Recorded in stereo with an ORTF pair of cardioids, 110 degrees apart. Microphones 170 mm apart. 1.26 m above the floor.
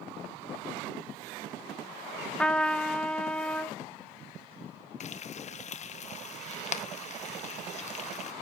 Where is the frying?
45° left, 1.0 m.